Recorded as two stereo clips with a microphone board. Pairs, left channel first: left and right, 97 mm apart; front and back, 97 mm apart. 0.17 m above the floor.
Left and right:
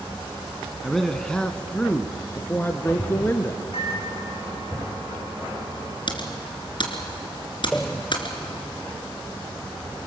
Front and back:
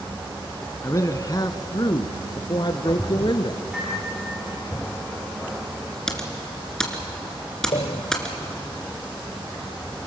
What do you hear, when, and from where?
0.8 s a man speaking: straight ahead, 1.2 m; by 3.6 s 30° left, 2.5 m
3.7 s a microwave: 100° left, 9 m
6.1 s typing on a keyboard: 80° left, 2.5 m
7.7 s a pop: 10° left, 1.0 m